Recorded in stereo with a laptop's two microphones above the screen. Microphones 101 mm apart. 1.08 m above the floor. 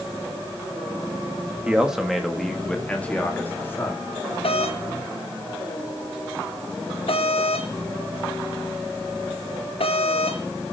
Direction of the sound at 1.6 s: 10° right (ahead or behind).